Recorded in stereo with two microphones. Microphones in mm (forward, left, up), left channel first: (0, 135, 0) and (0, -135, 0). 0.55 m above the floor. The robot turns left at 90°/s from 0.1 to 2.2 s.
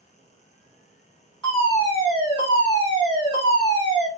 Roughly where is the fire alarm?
Centre.